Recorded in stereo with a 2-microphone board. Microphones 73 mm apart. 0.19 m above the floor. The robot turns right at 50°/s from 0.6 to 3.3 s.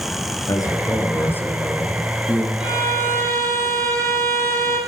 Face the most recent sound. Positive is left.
turn(degrees=-135)